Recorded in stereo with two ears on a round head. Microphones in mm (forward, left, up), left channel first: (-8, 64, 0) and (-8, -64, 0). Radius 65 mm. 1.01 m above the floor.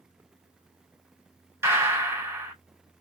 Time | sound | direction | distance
1.6 | a gunshot | 20° right (ahead or behind) | 2 m